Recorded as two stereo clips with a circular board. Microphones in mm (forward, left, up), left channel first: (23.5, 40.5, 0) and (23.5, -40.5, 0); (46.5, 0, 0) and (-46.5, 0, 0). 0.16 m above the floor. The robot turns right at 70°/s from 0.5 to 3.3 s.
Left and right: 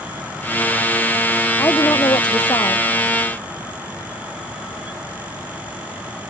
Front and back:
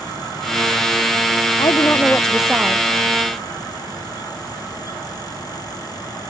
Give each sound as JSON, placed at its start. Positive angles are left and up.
{"t": 1.6, "sound": "a woman speaking", "azimuth_deg": 35}